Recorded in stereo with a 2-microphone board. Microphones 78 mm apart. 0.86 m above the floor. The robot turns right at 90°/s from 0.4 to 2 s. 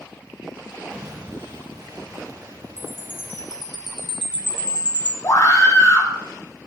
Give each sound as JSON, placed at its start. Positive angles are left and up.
{"t": 0.9, "sound": "an explosion", "azimuth_deg": -145, "distance_m": 3.0}
{"t": 2.8, "sound": "a chime", "side_deg": -75, "distance_m": 1.6}
{"t": 5.2, "sound": "a scream", "side_deg": 50, "distance_m": 3.0}